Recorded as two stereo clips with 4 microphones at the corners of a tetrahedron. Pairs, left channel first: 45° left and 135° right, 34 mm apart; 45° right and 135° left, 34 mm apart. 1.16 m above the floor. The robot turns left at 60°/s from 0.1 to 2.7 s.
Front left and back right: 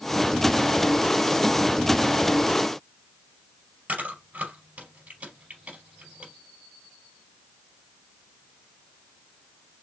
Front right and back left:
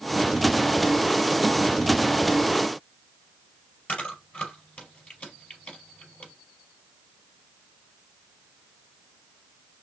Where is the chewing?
90° right, 4 m.